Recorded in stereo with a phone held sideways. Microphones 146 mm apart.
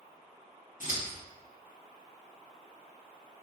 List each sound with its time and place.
0.8 s scissors: 60° left (ahead or behind), 0.7 m